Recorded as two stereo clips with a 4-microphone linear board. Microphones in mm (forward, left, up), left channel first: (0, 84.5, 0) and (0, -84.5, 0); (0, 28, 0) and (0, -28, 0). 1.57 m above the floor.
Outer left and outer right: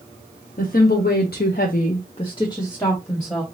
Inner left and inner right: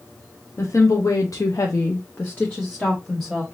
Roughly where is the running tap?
I don't hear a running tap.